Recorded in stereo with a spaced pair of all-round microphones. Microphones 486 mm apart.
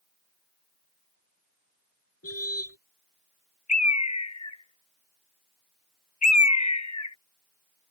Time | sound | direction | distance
2.2 | a car horn | 30° left (ahead or behind) | ?
3.7 | a bird | 35° left (ahead or behind) | ?